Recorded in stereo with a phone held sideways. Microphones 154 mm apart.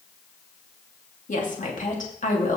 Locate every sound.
1.3 s a woman speaking: 55° left (ahead or behind), 2.5 m